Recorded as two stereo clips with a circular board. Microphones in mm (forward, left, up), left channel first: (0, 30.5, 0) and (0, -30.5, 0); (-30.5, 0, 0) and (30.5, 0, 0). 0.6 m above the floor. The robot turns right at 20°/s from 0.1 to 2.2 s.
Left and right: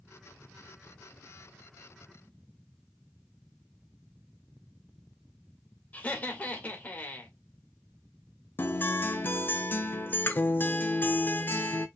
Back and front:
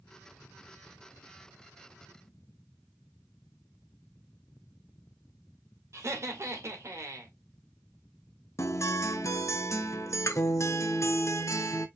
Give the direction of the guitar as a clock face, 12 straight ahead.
7 o'clock.